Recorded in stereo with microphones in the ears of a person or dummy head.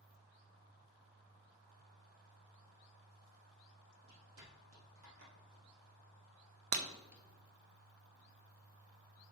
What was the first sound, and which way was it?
Footsteps, 60° right (ahead or behind).